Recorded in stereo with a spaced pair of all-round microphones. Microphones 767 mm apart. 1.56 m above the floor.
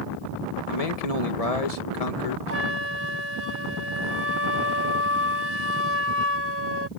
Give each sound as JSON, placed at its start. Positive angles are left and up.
{"t": 0.7, "sound": "a man speaking", "side_deg": 50}
{"t": 2.5, "sound": "a flute", "side_deg": -15}